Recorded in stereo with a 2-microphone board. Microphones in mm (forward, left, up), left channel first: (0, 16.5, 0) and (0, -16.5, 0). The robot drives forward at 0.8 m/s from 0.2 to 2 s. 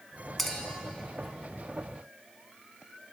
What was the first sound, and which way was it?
A clink, 5° left (ahead or behind).